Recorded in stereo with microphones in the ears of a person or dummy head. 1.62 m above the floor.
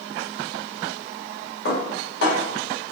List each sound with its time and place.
1.6 s dishes clattering: 65° left (ahead or behind), 1.9 m